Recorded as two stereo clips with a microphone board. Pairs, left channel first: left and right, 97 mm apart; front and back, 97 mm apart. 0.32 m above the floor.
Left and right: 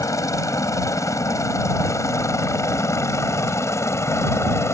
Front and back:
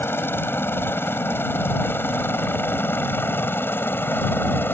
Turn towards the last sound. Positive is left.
turn(degrees=55)